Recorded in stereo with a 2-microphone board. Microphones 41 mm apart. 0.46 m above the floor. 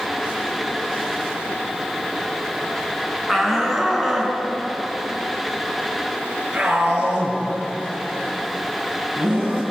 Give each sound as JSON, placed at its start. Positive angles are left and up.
{"t": 3.3, "sound": "a shout", "side_deg": 0, "distance_m": 4.5}